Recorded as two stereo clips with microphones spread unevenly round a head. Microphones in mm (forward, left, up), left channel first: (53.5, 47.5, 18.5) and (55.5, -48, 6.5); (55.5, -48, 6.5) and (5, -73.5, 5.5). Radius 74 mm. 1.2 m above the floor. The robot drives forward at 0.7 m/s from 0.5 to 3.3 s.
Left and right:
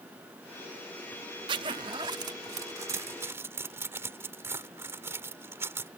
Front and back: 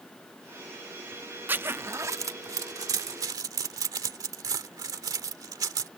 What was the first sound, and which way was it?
A zipper, 120° right.